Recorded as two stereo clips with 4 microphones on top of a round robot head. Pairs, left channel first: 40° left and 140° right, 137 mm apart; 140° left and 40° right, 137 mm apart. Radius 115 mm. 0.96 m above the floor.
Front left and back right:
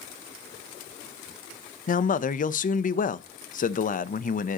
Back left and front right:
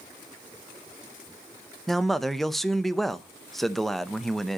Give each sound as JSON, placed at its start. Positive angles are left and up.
{"t": 1.9, "sound": "a man speaking", "azimuth_deg": 50, "distance_m": 0.8}